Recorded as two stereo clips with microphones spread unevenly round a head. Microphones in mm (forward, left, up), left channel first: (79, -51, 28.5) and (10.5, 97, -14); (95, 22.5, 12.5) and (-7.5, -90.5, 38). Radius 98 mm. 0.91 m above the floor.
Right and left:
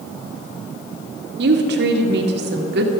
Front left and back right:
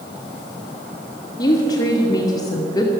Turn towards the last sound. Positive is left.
turn(degrees=115)